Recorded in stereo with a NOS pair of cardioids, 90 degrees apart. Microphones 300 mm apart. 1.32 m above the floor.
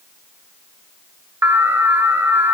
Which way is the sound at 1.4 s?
10° right.